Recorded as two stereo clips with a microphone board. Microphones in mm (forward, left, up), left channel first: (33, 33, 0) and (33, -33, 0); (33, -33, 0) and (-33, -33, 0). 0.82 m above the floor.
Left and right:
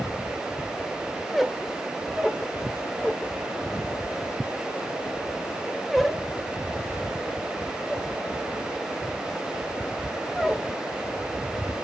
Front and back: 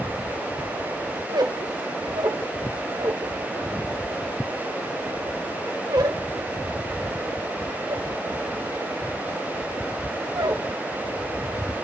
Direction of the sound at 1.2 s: 175° right.